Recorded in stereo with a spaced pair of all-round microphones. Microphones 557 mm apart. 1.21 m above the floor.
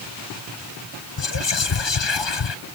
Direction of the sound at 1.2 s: 50° left (ahead or behind).